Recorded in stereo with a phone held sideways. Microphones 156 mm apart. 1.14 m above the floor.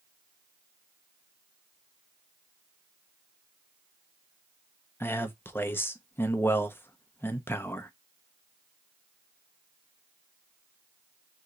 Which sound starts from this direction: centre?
A man speaking, at 5.0 s.